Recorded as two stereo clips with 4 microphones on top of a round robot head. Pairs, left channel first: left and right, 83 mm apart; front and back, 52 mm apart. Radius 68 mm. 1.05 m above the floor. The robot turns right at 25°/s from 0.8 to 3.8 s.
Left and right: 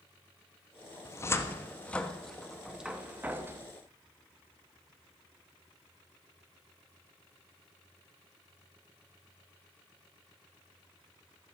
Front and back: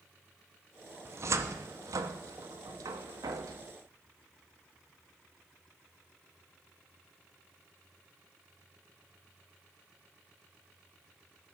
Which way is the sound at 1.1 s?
145° left.